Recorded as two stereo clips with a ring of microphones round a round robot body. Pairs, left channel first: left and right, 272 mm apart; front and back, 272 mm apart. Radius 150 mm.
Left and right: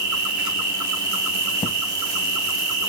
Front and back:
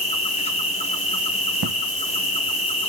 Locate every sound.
0.0 s an insect: 70° right, 0.9 m
1.6 s an explosion: 165° left, 0.6 m